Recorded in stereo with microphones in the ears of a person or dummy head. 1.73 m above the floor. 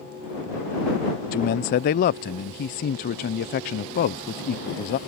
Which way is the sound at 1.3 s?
35° left (ahead or behind).